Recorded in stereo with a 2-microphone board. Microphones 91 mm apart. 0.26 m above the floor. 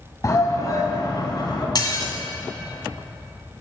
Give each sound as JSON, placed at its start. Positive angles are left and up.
{"t": 0.2, "sound": "a shout", "side_deg": 35, "distance_m": 1.9}
{"t": 1.8, "sound": "dishes clattering", "side_deg": 45, "distance_m": 1.4}